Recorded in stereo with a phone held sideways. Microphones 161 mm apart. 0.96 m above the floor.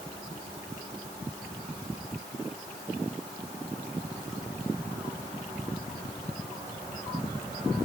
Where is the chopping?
I don't hear chopping.